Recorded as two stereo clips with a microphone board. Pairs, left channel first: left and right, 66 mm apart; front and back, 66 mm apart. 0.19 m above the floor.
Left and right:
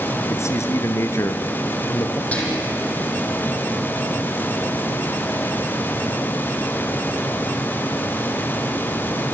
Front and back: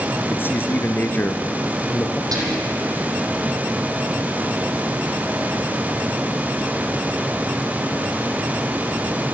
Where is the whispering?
160° left, 7.5 m.